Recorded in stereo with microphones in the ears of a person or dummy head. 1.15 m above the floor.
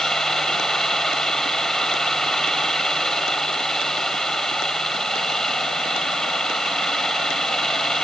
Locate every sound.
0.0 s a fan: 10° left (ahead or behind)